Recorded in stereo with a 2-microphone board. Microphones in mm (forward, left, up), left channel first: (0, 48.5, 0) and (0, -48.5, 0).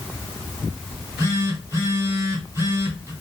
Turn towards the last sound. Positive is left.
turn(degrees=-30)  # may be behind; listen again after turning